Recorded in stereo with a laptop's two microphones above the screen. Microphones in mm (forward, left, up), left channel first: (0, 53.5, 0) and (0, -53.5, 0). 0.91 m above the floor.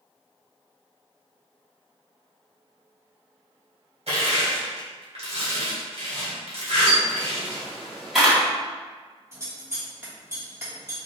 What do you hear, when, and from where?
4.1 s crushing: 70° right (ahead or behind), 1.8 m
6.9 s a camera shutter: 5° right (ahead or behind), 1.5 m
9.3 s scissors: 25° right (ahead or behind), 1.4 m